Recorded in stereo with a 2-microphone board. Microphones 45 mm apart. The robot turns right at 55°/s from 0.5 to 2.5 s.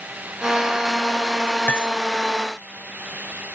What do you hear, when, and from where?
1.7 s cutlery clinking: 35° left (ahead or behind); by 1.9 s 45° left (ahead or behind)